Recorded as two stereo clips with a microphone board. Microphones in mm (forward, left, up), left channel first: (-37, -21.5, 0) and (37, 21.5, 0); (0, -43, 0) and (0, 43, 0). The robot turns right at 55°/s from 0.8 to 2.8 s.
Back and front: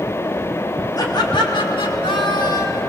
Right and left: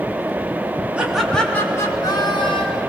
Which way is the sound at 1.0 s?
165° left.